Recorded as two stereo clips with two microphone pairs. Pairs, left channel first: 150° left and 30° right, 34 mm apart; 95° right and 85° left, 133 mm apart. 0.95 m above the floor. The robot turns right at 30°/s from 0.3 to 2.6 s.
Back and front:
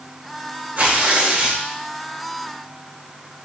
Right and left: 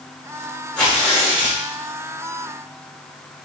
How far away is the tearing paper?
About 1.6 m.